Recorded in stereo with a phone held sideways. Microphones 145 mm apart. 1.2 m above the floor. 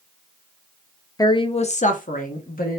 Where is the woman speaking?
25° left (ahead or behind), 0.5 m; by 2.8 s 75° left (ahead or behind), 1.0 m.